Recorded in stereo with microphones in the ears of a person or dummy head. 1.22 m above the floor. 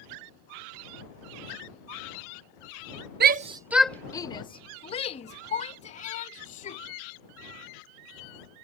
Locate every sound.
3.2 s a shout: 55° right (ahead or behind); by 6.8 s 45° left (ahead or behind)